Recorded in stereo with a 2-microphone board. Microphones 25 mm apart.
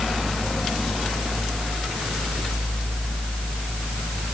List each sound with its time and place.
Only background noise.